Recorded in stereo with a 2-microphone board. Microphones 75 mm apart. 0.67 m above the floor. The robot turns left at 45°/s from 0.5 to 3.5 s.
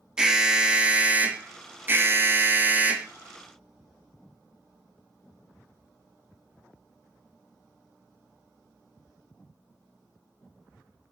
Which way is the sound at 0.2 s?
10° right (ahead or behind).